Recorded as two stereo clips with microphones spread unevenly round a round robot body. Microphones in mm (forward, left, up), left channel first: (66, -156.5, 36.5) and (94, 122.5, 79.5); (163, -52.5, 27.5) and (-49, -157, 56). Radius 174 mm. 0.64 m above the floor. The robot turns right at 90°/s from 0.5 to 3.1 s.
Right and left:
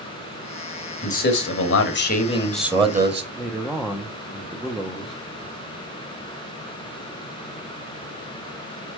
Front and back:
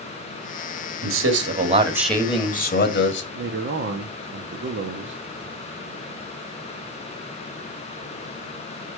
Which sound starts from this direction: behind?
A man speaking, at 3.4 s.